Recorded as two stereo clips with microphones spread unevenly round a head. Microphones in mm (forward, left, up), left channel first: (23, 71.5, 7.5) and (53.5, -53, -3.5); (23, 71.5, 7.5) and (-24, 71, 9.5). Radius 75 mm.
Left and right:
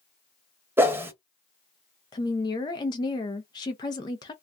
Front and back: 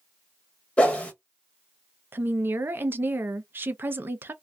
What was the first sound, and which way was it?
A whoosh, 20° right.